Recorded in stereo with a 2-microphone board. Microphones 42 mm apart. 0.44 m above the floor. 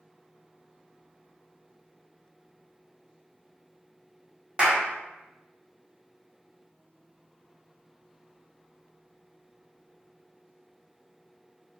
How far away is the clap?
About 0.9 m.